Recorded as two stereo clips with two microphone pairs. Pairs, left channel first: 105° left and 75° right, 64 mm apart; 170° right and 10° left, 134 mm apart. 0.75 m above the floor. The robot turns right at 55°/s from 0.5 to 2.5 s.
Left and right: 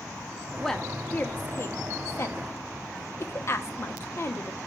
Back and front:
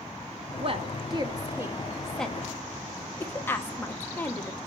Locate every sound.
0.6 s a woman speaking: 20° left, 1.0 m; by 4.6 s 125° left, 1.0 m